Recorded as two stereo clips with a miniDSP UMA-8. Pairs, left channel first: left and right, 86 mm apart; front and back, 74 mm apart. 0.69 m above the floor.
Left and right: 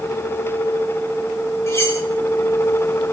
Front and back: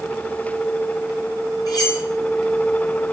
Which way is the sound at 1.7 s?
35° left.